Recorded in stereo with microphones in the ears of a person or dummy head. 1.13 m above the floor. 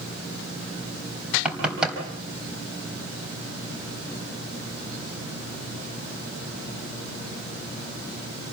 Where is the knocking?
5° right (ahead or behind), 4 m.